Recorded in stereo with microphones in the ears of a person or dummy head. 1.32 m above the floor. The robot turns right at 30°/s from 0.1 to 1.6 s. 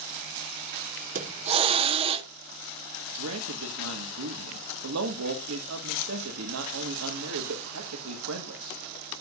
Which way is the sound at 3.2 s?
85° right.